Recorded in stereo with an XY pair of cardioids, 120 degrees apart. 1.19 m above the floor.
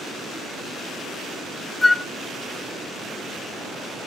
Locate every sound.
1.8 s a flute: 20° left, 0.8 m